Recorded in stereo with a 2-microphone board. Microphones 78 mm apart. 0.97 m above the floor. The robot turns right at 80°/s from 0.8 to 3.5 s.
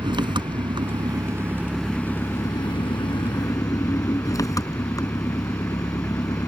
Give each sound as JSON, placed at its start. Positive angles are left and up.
{"t": 0.0, "sound": "an engine running", "azimuth_deg": -80}